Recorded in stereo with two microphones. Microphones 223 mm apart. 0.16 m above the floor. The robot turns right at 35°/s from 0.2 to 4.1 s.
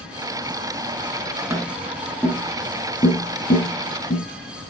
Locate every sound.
1.5 s tapping: 10° right (ahead or behind), 1.8 m; by 4.2 s 50° left (ahead or behind), 1.8 m